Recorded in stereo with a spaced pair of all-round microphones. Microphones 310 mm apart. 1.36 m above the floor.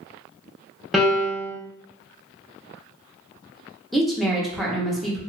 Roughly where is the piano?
Centre.